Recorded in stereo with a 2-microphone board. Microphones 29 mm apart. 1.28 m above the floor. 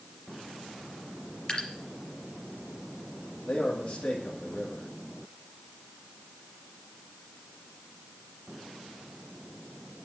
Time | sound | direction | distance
1.5 | dripping | 35° left (ahead or behind) | 3.5 m
3.5 | a man speaking | 50° left (ahead or behind) | 2.5 m